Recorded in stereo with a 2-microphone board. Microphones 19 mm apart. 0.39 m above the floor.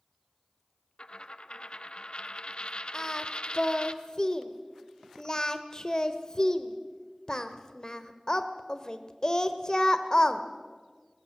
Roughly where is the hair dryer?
No hair dryer in this recording.